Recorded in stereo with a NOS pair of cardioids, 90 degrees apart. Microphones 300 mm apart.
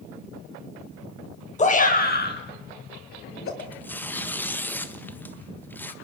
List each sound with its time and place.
1.6 s a shout: 25° left, 4.5 m; by 3.5 s 45° left, 6.5 m
3.6 s tearing paper: 5° left, 1.4 m